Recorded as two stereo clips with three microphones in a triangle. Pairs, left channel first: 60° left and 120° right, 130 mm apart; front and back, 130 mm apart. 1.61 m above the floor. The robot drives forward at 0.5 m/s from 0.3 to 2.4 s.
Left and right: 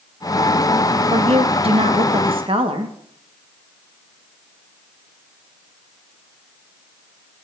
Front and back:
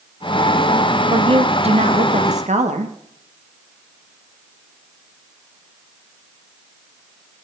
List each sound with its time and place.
1.1 s a woman speaking: 140° right, 0.8 m; by 3.0 s 160° right, 1.3 m